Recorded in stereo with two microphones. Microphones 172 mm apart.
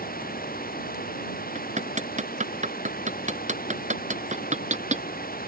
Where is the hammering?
45° right (ahead or behind).